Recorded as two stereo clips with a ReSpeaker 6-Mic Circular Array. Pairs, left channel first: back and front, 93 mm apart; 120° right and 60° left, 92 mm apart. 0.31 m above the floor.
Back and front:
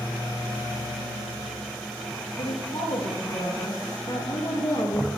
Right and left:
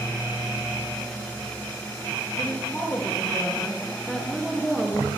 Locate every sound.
2.4 s a woman speaking: 165° left, 4.5 m; by 5.1 s 145° left, 3.5 m